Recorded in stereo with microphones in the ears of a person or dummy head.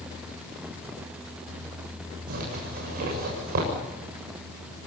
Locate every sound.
2.3 s a zipper: 50° right (ahead or behind), 7.5 m